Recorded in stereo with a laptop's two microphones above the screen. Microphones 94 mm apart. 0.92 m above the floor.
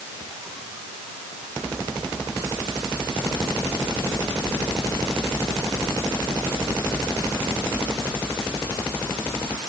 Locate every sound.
Only background noise.